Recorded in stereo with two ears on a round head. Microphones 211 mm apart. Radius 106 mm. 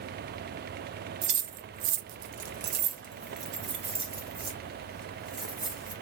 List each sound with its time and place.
1.2 s keys jangling: 30° right (ahead or behind), 0.7 m; by 5.9 s 15° right (ahead or behind), 2.5 m